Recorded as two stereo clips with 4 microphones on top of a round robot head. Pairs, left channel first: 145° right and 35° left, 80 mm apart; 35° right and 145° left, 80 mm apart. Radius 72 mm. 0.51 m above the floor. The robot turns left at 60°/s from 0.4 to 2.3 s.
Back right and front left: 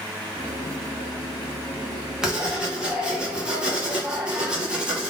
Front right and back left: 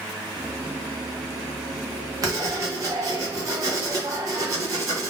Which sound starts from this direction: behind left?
Writing, at 2.2 s.